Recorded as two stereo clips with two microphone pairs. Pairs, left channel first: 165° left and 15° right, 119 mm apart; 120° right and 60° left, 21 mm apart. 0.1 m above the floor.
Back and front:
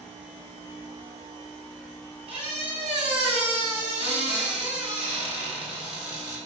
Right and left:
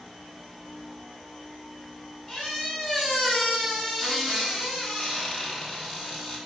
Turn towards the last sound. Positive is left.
turn(degrees=-40)